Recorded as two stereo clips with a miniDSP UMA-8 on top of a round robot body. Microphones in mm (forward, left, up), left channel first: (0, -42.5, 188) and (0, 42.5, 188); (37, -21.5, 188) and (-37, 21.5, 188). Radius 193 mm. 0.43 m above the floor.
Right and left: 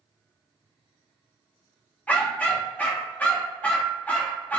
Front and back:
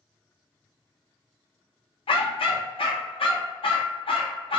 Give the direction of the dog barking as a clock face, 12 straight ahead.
1 o'clock.